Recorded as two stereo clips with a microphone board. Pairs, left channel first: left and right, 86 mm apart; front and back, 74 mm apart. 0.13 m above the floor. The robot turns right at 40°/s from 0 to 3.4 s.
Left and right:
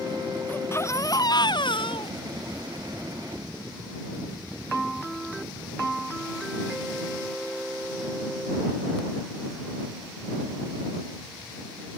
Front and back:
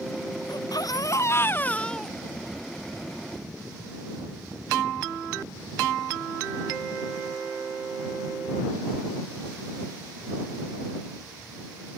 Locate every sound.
0.5 s a baby crying: 20° left; by 2.6 s 105° left